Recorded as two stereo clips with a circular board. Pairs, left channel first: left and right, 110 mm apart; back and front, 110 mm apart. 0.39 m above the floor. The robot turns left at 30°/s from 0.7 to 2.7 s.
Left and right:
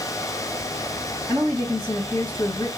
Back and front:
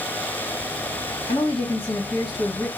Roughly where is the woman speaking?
Behind.